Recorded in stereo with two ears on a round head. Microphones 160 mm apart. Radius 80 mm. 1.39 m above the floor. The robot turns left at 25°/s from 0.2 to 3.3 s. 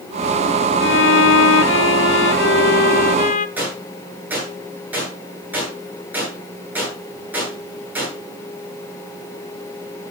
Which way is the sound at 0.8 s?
105° left.